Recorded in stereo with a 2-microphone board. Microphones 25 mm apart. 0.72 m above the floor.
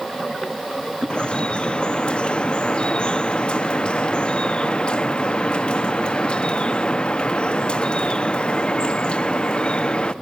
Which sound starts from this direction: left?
Dripping, at 1.1 s.